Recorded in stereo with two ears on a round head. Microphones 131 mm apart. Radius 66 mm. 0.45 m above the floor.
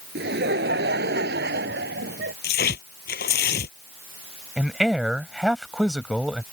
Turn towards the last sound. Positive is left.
turn(degrees=-5)  # may be behind; listen again after turning